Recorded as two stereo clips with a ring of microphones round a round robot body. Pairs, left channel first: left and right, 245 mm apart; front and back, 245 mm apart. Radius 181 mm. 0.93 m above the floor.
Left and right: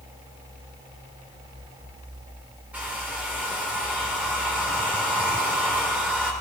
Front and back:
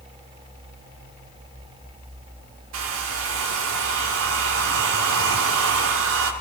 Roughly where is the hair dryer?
Behind.